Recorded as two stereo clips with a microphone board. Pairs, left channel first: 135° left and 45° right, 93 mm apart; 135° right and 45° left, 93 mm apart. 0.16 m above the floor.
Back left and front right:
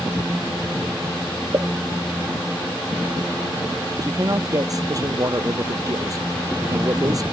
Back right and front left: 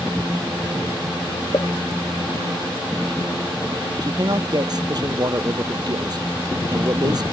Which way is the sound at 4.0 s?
5° left.